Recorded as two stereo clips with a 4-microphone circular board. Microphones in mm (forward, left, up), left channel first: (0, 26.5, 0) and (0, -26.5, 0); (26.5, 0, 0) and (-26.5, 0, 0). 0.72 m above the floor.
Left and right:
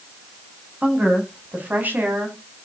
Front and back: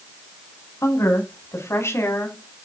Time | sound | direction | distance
0.8 | a woman speaking | 25° right | 6.5 m